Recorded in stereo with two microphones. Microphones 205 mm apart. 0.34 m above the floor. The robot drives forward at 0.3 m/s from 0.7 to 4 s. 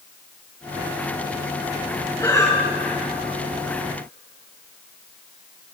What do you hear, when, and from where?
2.2 s breathing: 15° left (ahead or behind), 2.5 m